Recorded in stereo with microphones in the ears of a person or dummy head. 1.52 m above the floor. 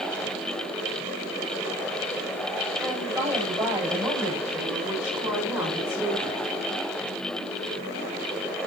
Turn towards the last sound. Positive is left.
turn(degrees=-10)  # may be behind; listen again after turning